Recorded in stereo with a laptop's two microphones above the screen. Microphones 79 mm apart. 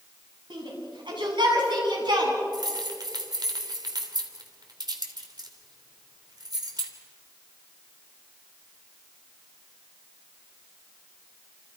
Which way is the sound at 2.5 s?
60° right (ahead or behind).